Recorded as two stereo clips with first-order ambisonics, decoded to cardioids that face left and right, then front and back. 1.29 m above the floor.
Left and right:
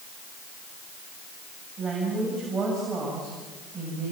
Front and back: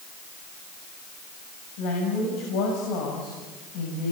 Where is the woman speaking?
15° right, 7 m.